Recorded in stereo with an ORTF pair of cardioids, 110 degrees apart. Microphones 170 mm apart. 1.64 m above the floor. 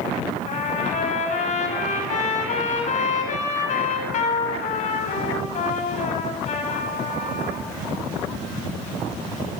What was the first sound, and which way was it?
A trumpet, 50° left.